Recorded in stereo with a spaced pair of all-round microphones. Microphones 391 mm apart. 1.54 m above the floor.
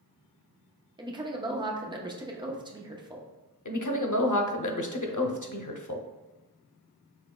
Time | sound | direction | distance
1.0 | a woman speaking | 10° right (ahead or behind) | 0.7 m
3.6 | a woman speaking | 50° left (ahead or behind) | 0.6 m